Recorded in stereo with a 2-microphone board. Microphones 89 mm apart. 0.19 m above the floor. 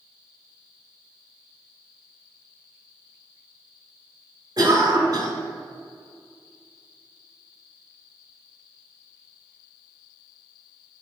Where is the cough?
45° right (ahead or behind), 1.6 m.